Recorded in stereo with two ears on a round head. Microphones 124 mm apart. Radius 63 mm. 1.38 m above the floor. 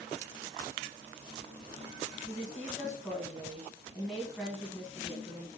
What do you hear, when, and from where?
2.3 s a woman speaking: centre (ahead or behind), 1.1 m